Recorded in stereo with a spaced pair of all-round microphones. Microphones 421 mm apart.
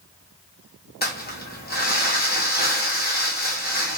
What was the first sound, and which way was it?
Crumpling, 20° left (ahead or behind).